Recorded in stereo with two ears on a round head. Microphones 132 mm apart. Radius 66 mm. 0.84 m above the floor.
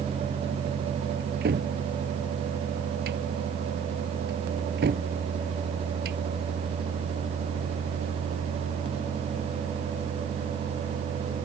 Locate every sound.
1.2 s a cupboard door: 85° right